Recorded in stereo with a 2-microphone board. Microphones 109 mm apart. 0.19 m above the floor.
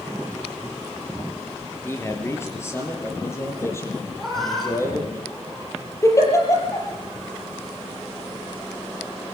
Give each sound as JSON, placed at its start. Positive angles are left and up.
{"t": 1.8, "sound": "a man speaking", "side_deg": 25, "distance_m": 4.0}
{"t": 4.2, "sound": "a cat meowing", "side_deg": 5, "distance_m": 4.0}
{"t": 6.0, "sound": "a giggle", "side_deg": 25, "distance_m": 5.5}